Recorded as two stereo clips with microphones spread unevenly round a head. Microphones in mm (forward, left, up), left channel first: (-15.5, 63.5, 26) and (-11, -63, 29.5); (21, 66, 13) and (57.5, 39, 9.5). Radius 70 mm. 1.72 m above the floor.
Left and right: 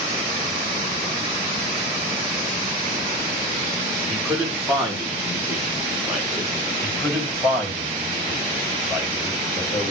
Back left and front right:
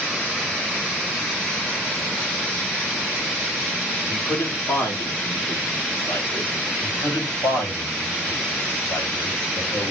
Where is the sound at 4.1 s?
175° right, 5 m.